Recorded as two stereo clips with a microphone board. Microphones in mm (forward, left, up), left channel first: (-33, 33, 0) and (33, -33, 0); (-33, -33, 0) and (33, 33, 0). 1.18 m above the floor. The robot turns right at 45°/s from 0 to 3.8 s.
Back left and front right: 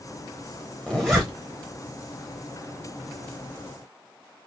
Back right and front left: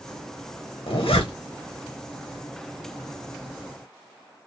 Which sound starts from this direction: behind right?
A zipper, at 0.9 s.